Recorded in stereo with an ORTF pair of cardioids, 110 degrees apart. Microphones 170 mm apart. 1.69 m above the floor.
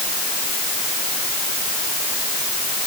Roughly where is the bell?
I don't hear a bell.